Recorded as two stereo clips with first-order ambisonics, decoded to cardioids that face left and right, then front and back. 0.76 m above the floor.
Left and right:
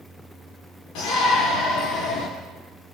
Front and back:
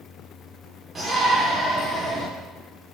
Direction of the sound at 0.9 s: 105° left.